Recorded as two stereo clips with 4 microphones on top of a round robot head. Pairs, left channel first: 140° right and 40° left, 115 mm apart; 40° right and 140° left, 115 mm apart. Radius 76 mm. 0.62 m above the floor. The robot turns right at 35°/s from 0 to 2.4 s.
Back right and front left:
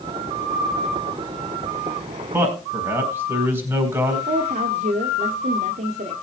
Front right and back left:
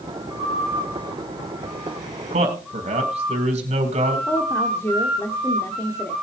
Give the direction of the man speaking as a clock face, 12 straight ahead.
8 o'clock.